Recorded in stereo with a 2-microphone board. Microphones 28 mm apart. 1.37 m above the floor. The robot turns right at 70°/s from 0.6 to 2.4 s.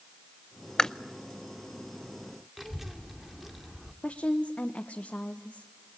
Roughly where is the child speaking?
Centre.